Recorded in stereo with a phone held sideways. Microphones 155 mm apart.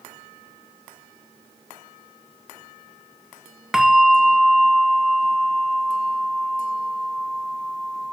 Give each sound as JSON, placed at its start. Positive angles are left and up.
{"t": 3.7, "sound": "a bell", "side_deg": -5, "distance_m": 0.6}